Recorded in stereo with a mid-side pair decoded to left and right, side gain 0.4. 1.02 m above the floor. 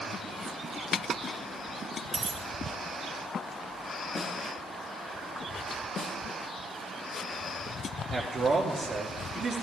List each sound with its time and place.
2.1 s a dropped coin: 40° right, 2.5 m
4.2 s a snare drum: 50° left, 1.8 m
6.0 s a snare drum: 60° left, 1.1 m
8.1 s a man speaking: 50° right, 1.8 m